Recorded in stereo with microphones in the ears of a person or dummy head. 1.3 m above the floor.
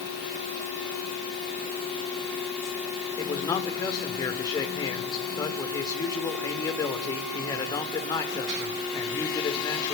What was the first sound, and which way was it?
A man speaking, 20° left (ahead or behind).